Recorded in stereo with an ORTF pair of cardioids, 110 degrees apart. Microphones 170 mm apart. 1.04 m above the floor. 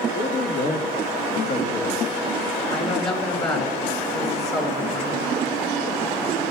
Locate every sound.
0.1 s a man speaking: 45° left, 2.0 m
2.7 s a woman speaking: 40° left, 6.5 m